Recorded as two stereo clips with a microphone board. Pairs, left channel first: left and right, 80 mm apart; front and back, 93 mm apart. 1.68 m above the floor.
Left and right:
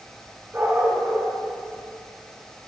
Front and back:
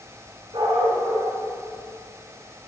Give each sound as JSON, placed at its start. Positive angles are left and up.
{"t": 0.5, "sound": "a dog barking", "azimuth_deg": -155, "distance_m": 5.5}